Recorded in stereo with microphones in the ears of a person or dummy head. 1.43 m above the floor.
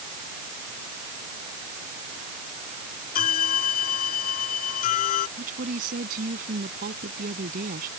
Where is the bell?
45° left (ahead or behind).